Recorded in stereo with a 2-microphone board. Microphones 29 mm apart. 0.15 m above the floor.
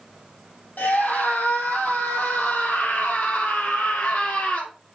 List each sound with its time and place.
0.8 s a scream: 70° left (ahead or behind), 4.5 m